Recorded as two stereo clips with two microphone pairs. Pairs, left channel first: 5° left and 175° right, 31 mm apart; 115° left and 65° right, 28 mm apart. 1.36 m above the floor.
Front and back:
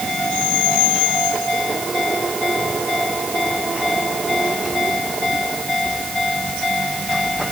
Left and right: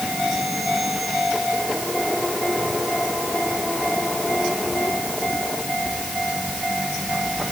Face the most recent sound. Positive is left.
No sound to turn to.